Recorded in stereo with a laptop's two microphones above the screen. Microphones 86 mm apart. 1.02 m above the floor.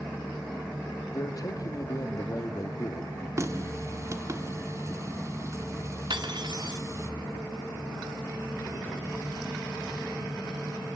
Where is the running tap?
35° right (ahead or behind), 1.8 m.